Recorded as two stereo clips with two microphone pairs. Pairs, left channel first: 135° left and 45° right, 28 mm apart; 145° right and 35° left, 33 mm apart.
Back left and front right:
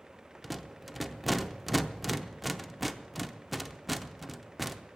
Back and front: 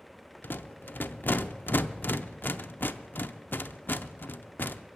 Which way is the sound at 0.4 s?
130° right.